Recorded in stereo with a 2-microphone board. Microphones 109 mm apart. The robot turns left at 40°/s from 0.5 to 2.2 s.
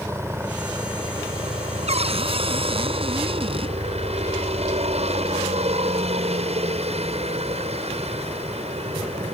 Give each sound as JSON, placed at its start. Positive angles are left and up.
{"t": 0.0, "sound": "a helicopter", "azimuth_deg": -25}
{"t": 1.9, "sound": "a cupboard door", "side_deg": -70}